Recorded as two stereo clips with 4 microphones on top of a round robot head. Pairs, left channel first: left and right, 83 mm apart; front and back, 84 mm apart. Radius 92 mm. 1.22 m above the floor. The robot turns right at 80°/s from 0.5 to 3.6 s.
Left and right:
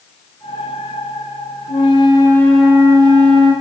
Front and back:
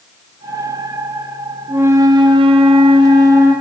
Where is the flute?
105° left, 3 m; by 3.5 s 105° right, 3 m.